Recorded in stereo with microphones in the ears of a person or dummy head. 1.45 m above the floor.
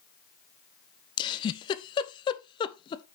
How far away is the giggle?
About 0.6 m.